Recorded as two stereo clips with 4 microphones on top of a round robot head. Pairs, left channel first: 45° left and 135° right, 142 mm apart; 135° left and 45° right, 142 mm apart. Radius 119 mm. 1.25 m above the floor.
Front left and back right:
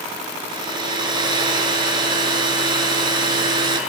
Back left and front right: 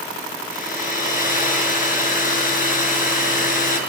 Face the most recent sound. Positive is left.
turn(degrees=165)